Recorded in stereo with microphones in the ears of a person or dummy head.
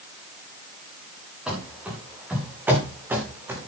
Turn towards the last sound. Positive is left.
turn(degrees=-15)  # may be behind; listen again after turning